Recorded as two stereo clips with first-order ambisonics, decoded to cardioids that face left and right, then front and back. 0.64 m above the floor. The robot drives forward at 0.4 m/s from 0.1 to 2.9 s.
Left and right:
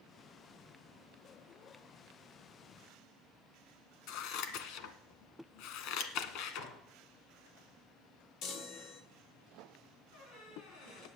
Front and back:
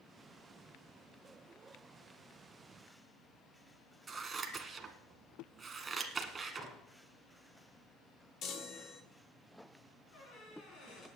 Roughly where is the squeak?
Ahead left.